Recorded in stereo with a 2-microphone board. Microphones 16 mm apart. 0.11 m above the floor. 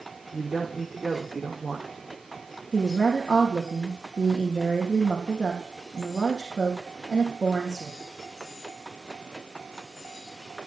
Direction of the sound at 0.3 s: 45° right (ahead or behind).